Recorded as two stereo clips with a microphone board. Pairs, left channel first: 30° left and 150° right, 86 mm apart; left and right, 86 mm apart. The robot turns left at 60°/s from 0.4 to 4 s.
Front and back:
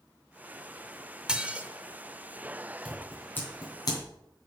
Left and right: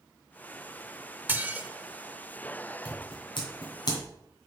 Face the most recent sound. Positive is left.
turn(degrees=55)